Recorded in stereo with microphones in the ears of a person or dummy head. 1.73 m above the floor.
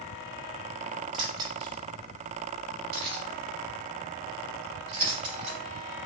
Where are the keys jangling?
30° right (ahead or behind), 2 m; by 5.6 s 35° right (ahead or behind), 4.5 m.